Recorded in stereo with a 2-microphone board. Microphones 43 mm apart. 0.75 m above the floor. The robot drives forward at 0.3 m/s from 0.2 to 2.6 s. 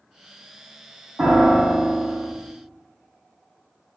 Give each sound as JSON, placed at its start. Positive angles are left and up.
{"t": 1.2, "sound": "a piano", "side_deg": -35, "distance_m": 1.4}